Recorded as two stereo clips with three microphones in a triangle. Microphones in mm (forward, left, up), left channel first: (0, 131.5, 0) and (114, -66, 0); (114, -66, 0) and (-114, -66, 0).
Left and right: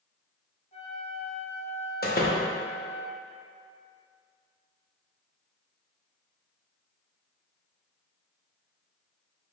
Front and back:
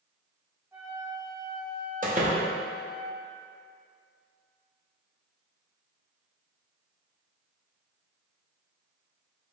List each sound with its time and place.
0.7 s a flute: 110° left, 0.9 m
2.0 s a door slam: 145° left, 0.7 m